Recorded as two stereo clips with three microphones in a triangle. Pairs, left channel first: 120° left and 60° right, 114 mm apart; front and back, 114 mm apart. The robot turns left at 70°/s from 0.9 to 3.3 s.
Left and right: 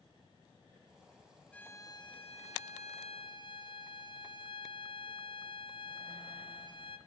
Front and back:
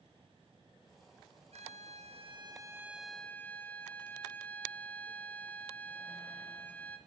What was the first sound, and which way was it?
A violin, 160° right.